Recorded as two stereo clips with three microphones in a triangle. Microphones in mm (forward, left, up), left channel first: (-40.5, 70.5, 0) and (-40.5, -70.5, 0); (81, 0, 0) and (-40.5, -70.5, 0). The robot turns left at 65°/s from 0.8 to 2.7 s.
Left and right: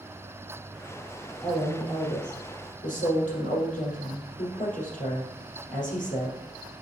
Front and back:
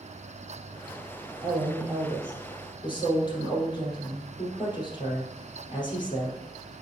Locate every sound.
1.4 s a woman speaking: 170° left, 3.5 m; by 6.4 s 85° left, 3.5 m